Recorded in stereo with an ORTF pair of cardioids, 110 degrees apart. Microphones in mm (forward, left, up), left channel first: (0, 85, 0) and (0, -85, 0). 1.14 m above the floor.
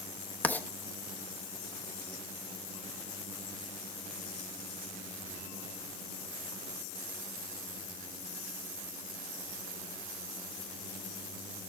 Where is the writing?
10° left, 1.0 m.